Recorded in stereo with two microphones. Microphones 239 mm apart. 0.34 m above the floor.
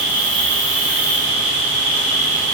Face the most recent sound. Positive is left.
turn(degrees=-45)  # may be behind; listen again after turning